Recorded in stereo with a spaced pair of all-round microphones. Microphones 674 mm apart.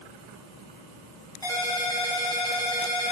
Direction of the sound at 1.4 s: 5° left (ahead or behind).